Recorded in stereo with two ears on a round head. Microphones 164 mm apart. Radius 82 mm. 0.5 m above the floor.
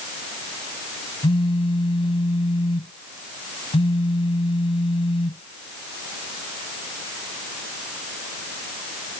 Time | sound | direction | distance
1.2 | a phone buzzing | 25° left (ahead or behind) | ?